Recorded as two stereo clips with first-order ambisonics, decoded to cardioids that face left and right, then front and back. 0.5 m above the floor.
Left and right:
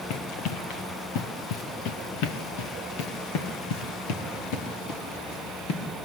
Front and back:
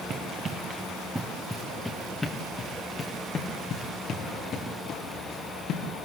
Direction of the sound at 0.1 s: 120° left.